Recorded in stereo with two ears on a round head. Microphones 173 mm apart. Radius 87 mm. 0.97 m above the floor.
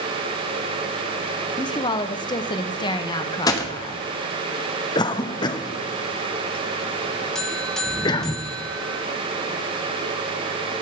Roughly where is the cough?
Left.